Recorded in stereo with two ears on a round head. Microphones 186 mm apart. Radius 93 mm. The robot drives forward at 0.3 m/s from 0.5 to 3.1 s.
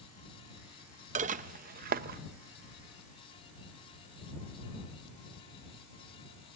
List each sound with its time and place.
1.1 s dishes clattering: 35° right (ahead or behind), 0.6 m; by 2.2 s 45° right (ahead or behind), 0.5 m